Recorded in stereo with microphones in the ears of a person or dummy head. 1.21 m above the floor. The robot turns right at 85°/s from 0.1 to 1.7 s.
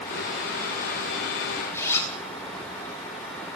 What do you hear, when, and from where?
1.7 s a zipper: 15° left (ahead or behind), 7.5 m